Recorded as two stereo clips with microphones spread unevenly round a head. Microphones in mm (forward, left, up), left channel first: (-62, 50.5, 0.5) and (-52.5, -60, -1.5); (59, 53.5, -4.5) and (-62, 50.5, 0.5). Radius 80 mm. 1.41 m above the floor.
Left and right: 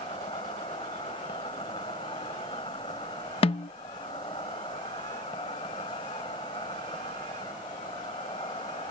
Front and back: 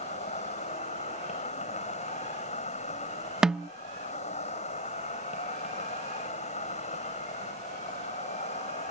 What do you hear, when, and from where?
0.0 s an insect: 30° left
3.4 s a snare drum: 100° left